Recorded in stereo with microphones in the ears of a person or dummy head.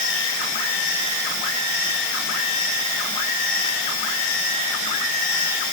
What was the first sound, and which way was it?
Only background noise.